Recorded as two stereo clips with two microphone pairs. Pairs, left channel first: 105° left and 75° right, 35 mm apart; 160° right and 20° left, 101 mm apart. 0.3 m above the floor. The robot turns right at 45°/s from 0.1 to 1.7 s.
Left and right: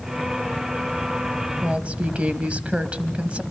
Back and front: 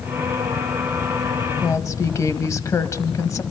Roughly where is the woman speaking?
Behind right.